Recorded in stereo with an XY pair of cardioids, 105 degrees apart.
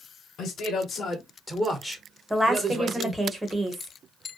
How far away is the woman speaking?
About 1.0 m.